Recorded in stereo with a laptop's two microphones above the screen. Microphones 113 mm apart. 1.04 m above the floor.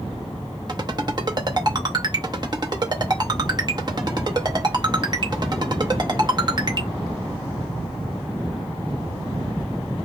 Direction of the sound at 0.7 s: 40° right (ahead or behind).